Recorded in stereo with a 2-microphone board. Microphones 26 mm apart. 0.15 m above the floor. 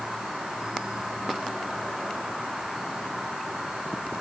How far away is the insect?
About 7 m.